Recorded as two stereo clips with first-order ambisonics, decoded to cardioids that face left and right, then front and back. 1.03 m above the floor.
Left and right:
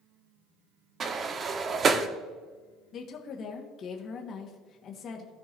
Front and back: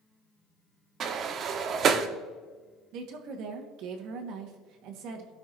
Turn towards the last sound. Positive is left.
turn(degrees=145)